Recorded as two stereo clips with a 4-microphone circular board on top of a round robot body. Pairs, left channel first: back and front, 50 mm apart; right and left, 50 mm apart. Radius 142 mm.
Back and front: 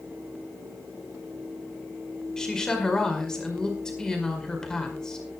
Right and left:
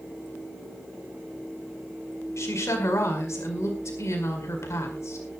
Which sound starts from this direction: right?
A woman speaking, at 2.4 s.